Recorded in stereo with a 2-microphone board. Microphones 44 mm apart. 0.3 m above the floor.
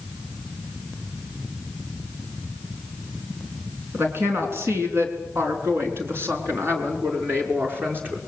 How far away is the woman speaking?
About 4.5 m.